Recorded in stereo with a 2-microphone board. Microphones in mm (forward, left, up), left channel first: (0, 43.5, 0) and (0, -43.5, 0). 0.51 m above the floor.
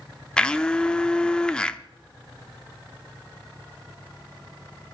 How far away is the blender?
About 0.7 m.